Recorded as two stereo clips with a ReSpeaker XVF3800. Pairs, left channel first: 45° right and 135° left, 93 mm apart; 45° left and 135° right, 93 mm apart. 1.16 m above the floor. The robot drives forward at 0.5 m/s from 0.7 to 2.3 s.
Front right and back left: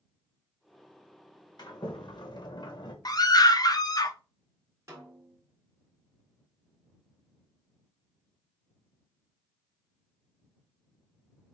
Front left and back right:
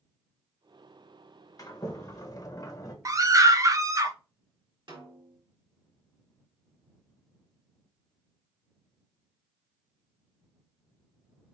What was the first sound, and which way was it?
A sliding door, 5° right.